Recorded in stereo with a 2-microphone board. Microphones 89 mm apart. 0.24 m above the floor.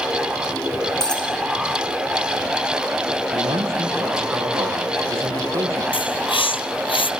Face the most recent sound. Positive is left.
turn(degrees=85)